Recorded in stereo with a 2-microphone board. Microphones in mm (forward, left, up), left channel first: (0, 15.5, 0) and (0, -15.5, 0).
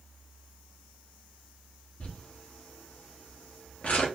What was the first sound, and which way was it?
Crumpling, 50° left (ahead or behind).